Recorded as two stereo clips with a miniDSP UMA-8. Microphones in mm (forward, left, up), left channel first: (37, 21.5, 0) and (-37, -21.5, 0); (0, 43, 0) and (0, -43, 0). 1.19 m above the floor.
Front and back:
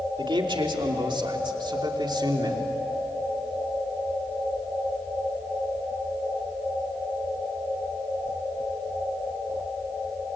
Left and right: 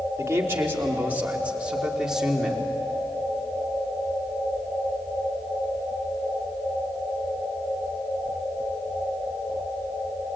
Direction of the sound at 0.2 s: 150° right.